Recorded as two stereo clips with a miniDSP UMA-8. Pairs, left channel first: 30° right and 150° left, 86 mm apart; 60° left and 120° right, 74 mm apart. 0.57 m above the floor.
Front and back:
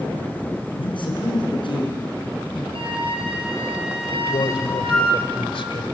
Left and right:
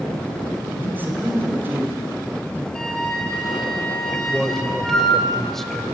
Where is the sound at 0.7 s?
55° right, 6 m.